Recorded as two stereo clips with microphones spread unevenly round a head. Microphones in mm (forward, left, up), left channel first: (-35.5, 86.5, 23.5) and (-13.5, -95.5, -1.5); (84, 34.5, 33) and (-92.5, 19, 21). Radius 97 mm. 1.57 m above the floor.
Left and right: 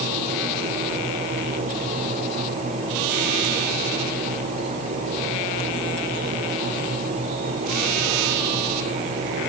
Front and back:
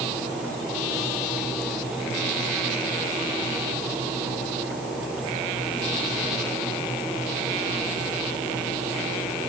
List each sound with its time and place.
Only background noise.